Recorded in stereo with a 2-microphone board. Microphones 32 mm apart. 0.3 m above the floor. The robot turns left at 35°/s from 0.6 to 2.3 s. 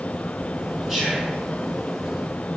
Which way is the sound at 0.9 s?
Centre (ahead or behind).